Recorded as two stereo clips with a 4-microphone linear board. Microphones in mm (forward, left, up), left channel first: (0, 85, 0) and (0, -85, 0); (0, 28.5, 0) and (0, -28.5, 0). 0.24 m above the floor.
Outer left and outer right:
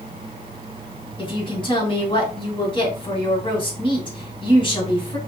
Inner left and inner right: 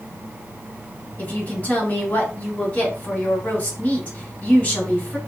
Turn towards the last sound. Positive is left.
turn(degrees=30)  # may be behind; listen again after turning